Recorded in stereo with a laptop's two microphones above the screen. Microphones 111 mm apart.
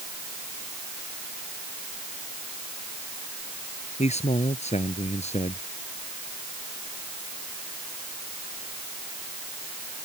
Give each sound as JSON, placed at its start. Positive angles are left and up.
{"t": 4.0, "sound": "a man speaking", "side_deg": 80}